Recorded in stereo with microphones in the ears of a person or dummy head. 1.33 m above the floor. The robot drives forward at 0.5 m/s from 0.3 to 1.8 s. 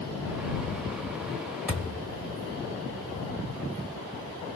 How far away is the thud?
About 1.6 m.